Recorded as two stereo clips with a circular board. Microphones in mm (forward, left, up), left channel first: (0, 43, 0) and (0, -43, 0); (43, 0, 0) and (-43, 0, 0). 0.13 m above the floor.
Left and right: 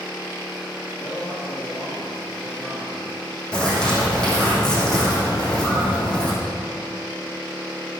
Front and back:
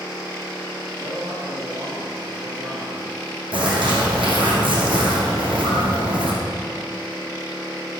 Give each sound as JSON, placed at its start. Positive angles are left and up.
{"t": 1.0, "sound": "a man speaking", "azimuth_deg": 155, "distance_m": 3.5}
{"t": 3.5, "sound": "a bird", "azimuth_deg": 170, "distance_m": 4.0}